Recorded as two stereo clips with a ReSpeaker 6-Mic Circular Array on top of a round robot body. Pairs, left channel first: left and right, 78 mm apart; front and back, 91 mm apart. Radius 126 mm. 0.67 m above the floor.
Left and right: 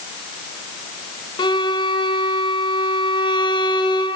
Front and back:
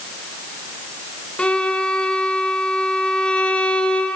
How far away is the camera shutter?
I don't hear a camera shutter.